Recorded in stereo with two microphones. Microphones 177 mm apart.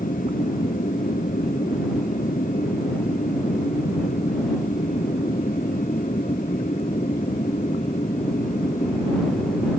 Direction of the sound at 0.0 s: 45° left (ahead or behind).